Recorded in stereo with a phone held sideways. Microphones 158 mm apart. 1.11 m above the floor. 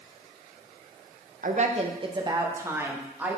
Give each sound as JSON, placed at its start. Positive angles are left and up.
{"t": 1.4, "sound": "a woman speaking", "side_deg": -55, "distance_m": 0.7}